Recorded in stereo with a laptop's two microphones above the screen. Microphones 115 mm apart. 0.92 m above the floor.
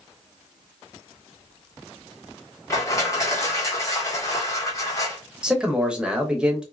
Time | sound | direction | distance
2.7 | crushing | 25° left (ahead or behind) | 1.4 m
5.4 | a man speaking | 10° right (ahead or behind) | 0.6 m